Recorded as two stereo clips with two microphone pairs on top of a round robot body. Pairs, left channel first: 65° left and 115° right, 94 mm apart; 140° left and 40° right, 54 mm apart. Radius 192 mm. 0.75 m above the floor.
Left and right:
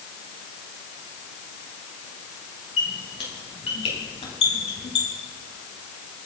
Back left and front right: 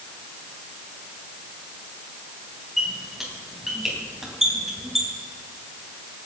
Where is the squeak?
45° left, 4 m.